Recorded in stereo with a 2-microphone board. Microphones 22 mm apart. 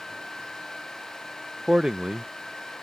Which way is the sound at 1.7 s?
30° right (ahead or behind).